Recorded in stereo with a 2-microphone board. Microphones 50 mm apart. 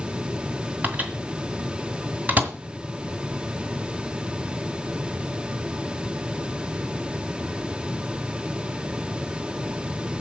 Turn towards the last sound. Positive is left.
turn(degrees=-35)  # may be behind; listen again after turning